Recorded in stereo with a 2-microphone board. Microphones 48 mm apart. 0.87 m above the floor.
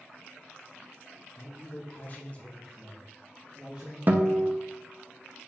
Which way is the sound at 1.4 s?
60° left (ahead or behind).